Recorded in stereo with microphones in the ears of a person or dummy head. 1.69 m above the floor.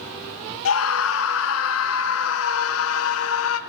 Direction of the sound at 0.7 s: 85° left.